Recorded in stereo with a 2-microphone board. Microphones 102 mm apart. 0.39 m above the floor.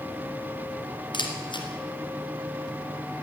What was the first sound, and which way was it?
A camera shutter, 55° left (ahead or behind).